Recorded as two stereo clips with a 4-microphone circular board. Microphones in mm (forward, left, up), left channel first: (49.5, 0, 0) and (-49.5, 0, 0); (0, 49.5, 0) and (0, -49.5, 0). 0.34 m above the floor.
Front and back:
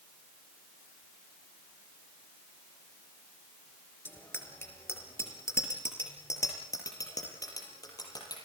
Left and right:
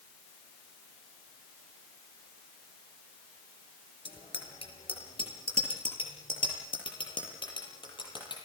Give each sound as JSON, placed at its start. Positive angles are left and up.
{"t": 4.0, "sound": "a bicycle bell", "azimuth_deg": 70, "distance_m": 4.0}